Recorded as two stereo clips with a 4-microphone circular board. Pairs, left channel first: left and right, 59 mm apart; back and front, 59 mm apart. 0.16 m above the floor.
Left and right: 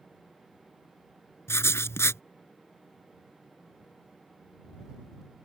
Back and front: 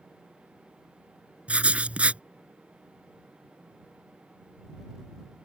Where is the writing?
65° left.